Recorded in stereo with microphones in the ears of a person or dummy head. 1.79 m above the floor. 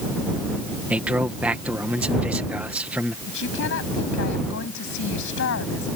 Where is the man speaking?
5° right (ahead or behind).